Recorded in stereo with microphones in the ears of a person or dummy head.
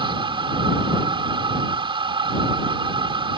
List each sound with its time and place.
0.0 s a machine running: 20° right (ahead or behind)